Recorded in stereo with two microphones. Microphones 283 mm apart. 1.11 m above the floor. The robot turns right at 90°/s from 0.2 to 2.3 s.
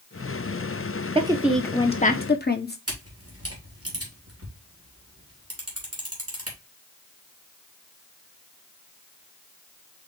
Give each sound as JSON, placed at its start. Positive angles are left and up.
{"t": 1.1, "sound": "a woman speaking", "azimuth_deg": -35, "distance_m": 0.8}
{"t": 2.9, "sound": "a camera shutter", "side_deg": -55, "distance_m": 2.5}